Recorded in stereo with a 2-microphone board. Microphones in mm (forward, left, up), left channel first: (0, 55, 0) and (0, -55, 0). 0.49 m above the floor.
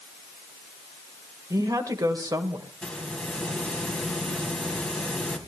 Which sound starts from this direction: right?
A woman speaking, at 1.5 s.